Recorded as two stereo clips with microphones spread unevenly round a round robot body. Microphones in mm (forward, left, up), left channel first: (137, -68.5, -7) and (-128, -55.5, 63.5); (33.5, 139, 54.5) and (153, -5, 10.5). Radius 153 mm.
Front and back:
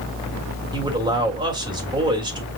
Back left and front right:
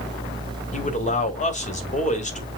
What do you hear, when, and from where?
0.7 s a man speaking: 95° left, 1.6 m